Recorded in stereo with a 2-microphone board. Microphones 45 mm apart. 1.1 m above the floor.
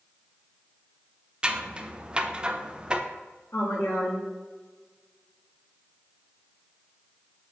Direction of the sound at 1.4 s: 25° right (ahead or behind).